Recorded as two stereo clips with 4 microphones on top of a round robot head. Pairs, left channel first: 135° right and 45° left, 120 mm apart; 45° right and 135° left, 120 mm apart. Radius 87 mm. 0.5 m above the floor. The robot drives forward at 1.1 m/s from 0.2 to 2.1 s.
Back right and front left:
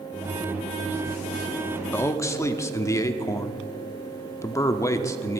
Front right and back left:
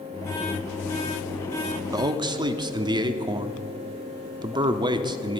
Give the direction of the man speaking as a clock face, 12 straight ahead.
7 o'clock.